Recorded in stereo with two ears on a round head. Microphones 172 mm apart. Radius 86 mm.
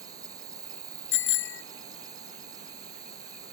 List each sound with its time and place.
0.0 s an insect: 20° right (ahead or behind)
1.1 s a bicycle bell: 75° left (ahead or behind)